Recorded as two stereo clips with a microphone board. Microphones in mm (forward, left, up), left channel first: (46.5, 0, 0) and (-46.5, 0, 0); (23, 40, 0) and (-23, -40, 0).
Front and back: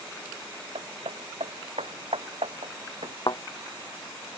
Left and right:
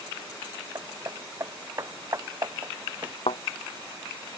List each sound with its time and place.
0.8 s hammering: 175° right
3.3 s a thud: 40° left